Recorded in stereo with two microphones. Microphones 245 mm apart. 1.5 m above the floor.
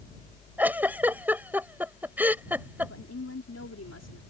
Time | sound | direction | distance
0.6 | a giggle | 5° right (ahead or behind) | ?
2.8 | a woman speaking | 80° left | ?